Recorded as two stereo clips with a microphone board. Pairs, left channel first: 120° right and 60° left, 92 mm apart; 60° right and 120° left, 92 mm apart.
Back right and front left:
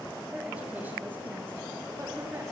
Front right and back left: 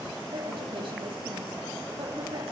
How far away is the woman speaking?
About 2.5 m.